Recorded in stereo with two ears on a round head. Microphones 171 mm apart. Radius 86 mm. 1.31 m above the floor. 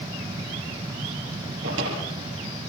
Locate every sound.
1.6 s a drawer: 70° right (ahead or behind), 7.5 m